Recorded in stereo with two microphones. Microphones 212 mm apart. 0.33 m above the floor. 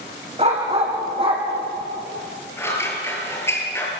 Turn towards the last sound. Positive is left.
turn(degrees=10)  # may be behind; listen again after turning